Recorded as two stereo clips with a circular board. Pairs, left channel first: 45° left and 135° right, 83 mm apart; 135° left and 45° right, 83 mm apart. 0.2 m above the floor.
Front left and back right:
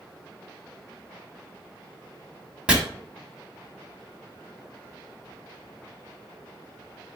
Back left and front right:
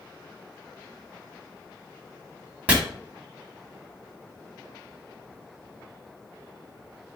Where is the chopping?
80° right, 1.0 m.